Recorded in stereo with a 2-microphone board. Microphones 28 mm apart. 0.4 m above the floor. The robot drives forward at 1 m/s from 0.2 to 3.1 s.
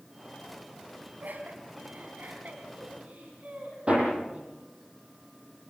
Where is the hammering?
40° right (ahead or behind), 8.5 m.